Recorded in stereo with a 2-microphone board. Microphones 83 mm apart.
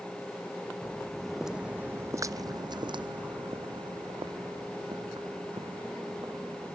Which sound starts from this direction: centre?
Footsteps, at 0.8 s.